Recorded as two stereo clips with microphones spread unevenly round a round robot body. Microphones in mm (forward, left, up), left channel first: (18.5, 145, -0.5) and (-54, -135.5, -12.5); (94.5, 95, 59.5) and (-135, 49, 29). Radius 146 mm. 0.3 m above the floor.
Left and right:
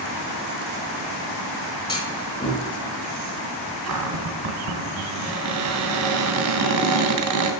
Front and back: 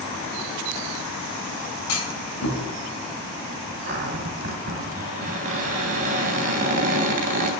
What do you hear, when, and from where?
1.9 s a clunk: straight ahead, 4 m
3.9 s a cupboard door: 120° right, 2.5 m